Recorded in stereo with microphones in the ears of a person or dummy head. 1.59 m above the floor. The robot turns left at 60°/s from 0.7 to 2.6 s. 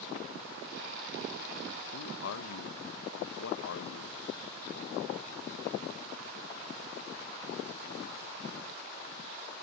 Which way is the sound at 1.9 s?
110° left.